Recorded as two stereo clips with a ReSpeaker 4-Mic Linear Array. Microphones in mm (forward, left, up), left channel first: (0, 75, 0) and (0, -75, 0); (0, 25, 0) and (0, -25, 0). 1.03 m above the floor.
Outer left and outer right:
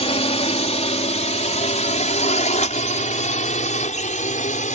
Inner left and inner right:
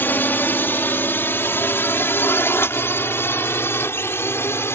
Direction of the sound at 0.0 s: 45° left (ahead or behind).